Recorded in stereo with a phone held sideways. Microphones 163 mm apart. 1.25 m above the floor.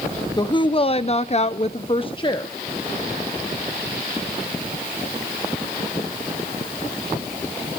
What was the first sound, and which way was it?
A woman speaking, 25° left (ahead or behind).